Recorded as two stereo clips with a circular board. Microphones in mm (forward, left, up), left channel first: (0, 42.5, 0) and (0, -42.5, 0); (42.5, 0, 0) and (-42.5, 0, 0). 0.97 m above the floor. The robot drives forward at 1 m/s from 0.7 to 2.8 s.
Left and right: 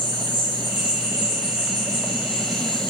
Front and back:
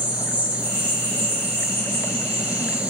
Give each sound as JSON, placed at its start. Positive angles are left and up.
{"t": 0.0, "sound": "an insect", "azimuth_deg": -110, "distance_m": 3.0}